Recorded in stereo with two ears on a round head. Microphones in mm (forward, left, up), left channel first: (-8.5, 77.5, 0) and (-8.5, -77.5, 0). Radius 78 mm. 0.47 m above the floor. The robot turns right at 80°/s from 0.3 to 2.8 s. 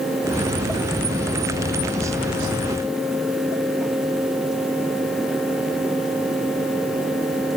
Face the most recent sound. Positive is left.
No sound to turn to.